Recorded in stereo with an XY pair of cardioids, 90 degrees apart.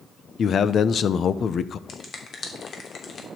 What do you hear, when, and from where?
0.4 s a man speaking: 60° left, 0.8 m
1.9 s a finger snap: 55° left, 3 m